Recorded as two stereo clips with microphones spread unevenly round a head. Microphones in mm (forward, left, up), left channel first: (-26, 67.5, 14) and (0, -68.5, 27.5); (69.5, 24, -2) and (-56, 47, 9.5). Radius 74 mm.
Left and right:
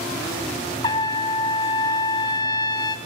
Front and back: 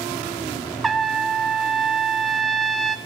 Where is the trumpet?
95° left, 0.6 m.